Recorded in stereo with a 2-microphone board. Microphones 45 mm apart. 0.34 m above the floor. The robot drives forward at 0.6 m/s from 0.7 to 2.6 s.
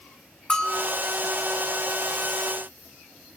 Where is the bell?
20° left (ahead or behind), 1.3 m.